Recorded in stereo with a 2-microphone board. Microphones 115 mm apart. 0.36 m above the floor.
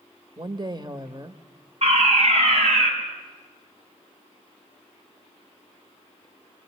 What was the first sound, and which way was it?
A woman speaking, 40° right (ahead or behind).